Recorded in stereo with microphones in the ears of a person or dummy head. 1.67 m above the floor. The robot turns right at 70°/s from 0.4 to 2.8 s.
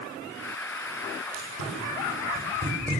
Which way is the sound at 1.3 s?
65° right (ahead or behind).